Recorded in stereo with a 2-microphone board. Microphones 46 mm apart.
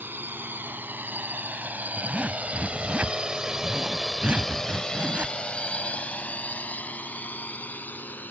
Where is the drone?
50° right (ahead or behind); by 8.3 s 45° left (ahead or behind).